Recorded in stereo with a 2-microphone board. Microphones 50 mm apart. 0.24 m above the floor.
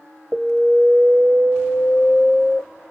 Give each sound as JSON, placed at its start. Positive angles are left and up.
{"t": 0.3, "sound": "an alarm", "side_deg": -15, "distance_m": 1.1}